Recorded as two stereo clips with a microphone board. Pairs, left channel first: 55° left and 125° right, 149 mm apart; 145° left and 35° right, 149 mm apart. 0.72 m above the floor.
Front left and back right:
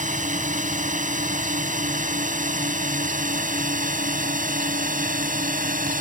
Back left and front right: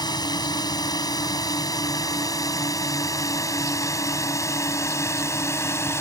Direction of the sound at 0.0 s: 155° right.